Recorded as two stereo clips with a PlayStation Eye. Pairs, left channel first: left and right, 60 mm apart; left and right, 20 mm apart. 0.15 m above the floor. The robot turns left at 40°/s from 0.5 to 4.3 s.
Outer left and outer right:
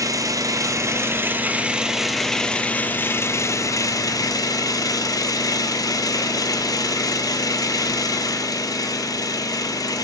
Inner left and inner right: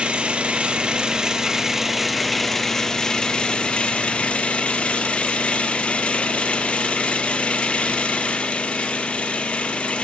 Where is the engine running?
115° right, 0.8 m; by 10.0 s 95° left, 0.8 m.